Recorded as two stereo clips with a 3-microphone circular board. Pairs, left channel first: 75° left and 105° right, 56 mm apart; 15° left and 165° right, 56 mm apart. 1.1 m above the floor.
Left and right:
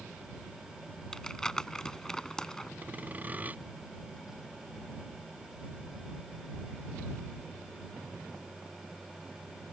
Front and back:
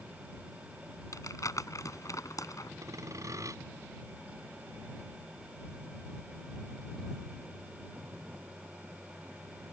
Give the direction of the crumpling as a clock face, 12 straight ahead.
12 o'clock.